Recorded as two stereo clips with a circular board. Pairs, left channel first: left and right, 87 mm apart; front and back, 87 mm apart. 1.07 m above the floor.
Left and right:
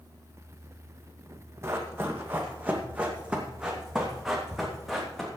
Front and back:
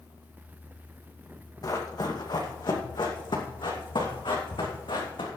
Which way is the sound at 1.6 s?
35° right.